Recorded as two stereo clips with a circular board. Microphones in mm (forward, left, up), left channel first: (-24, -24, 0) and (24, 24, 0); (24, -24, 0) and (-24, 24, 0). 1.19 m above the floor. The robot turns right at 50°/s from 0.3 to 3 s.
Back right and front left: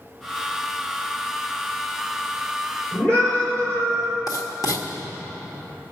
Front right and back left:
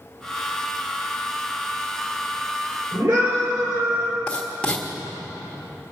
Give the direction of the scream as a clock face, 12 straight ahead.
7 o'clock.